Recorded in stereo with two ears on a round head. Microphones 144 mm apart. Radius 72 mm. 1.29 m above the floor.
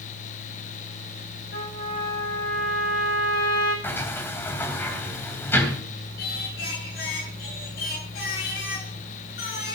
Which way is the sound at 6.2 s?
65° left (ahead or behind).